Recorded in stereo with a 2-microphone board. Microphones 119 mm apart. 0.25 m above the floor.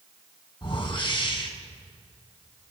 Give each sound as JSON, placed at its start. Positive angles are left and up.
{"t": 0.6, "sound": "a whoosh", "side_deg": 45, "distance_m": 1.7}